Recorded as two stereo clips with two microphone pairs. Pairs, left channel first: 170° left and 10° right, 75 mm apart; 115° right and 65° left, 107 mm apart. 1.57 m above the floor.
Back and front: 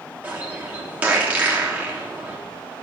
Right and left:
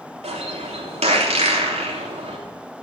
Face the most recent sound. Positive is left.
turn(degrees=60)